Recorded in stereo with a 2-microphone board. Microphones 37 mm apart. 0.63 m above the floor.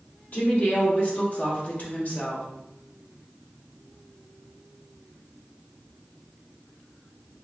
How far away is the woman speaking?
About 1.8 m.